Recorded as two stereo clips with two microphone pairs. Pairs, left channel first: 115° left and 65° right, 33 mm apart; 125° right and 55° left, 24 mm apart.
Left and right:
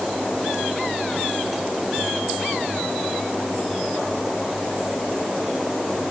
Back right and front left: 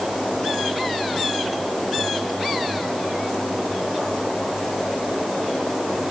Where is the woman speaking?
I don't hear a woman speaking.